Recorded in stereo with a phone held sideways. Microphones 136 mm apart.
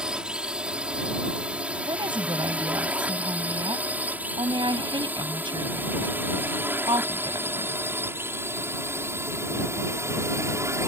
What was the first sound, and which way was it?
A drone, 5° right (ahead or behind).